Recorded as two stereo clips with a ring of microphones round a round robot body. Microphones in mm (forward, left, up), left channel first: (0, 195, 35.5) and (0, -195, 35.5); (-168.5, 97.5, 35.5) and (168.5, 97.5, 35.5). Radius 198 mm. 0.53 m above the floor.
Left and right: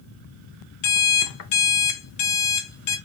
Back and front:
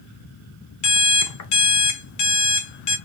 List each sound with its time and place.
0.8 s an alarm clock: 140° left, 0.7 m